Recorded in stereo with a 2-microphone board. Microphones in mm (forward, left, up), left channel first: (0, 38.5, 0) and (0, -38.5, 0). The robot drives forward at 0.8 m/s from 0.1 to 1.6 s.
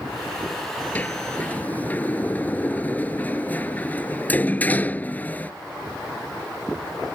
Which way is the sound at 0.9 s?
20° left (ahead or behind).